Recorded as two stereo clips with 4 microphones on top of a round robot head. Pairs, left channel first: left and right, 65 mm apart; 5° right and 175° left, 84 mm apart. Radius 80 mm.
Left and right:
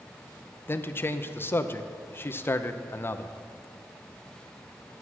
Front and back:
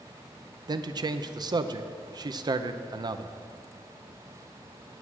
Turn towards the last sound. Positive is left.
turn(degrees=145)